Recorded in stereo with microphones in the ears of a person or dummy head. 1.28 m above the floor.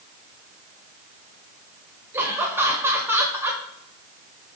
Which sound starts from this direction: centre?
Laughter, at 2.1 s.